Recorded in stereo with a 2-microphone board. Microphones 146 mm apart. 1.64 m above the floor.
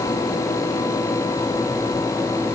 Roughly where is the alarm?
I don't hear an alarm.